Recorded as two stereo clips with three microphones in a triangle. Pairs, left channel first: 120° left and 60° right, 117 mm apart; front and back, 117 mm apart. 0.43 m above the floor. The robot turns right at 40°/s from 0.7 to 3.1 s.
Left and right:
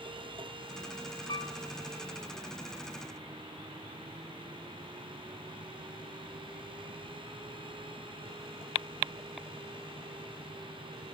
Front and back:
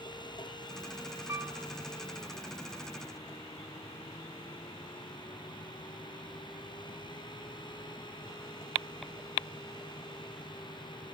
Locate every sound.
1.3 s a piano: 125° left, 1.2 m; by 1.5 s 135° left, 1.2 m